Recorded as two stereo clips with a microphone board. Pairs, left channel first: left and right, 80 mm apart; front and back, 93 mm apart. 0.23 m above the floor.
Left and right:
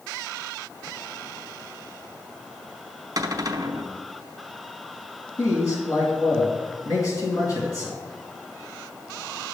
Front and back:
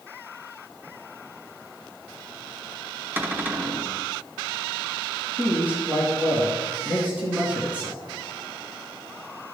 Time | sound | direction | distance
3.2 | a cupboard door | 115° right | 0.9 m
5.4 | a man speaking | 115° left | 2 m